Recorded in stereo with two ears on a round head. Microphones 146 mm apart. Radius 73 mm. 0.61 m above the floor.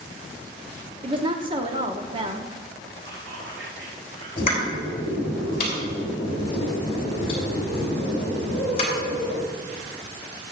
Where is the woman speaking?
30° right (ahead or behind), 1.0 m.